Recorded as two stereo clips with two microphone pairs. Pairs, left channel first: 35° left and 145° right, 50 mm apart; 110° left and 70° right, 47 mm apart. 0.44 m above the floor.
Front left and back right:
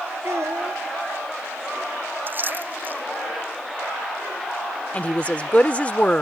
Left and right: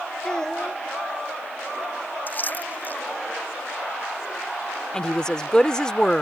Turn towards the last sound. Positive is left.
turn(degrees=50)